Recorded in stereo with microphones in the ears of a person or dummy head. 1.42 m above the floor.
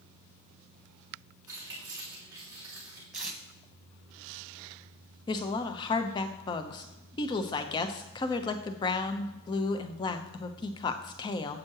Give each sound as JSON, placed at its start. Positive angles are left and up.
{"t": 1.5, "sound": "keys jangling", "side_deg": -15, "distance_m": 2.5}
{"t": 3.1, "sound": "tape being pulled", "side_deg": -5, "distance_m": 1.4}
{"t": 5.3, "sound": "a woman speaking", "side_deg": 25, "distance_m": 0.8}